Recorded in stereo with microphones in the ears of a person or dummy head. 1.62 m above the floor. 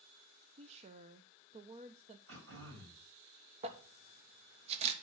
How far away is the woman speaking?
About 0.8 m.